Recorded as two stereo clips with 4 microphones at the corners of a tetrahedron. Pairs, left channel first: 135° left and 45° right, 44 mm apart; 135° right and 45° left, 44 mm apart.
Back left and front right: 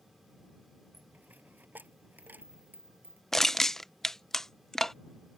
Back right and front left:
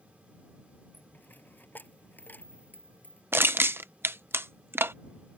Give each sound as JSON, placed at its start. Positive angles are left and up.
{"t": 0.9, "sound": "a dropped coin", "azimuth_deg": -90}
{"t": 3.3, "sound": "crushing", "azimuth_deg": 55}